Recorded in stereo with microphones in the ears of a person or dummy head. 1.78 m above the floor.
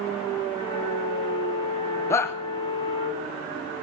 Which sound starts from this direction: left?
A flute, at 0.6 s.